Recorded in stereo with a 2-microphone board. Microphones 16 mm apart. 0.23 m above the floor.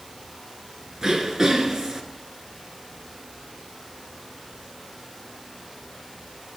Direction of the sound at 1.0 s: 30° right (ahead or behind).